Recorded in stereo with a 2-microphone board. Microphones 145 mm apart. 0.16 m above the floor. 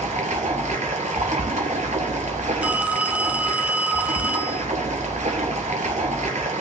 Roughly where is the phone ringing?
Centre.